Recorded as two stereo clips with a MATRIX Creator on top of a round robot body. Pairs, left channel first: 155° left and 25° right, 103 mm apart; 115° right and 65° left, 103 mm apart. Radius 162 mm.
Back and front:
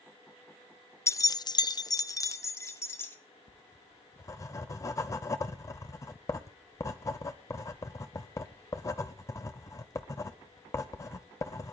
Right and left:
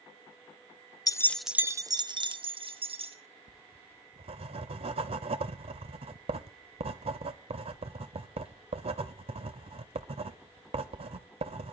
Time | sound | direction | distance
1.1 | keys jangling | 150° right | 0.6 m
3.5 | writing | 95° left | 0.5 m